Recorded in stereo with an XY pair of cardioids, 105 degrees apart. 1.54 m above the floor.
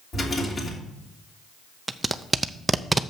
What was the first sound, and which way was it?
A rattle, 40° left.